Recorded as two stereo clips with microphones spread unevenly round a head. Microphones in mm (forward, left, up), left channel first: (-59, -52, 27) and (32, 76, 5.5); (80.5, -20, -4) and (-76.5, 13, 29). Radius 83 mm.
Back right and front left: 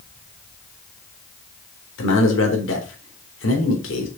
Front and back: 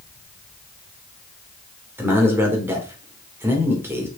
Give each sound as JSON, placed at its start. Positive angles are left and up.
{"t": 2.0, "sound": "a man speaking", "azimuth_deg": -115, "distance_m": 3.5}